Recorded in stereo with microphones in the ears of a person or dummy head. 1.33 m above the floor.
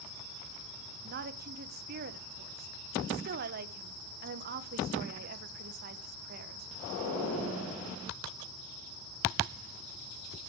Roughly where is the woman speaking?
Right.